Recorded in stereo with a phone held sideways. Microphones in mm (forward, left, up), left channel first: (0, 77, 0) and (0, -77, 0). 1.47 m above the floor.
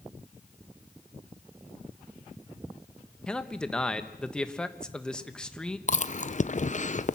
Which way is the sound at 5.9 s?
50° left (ahead or behind).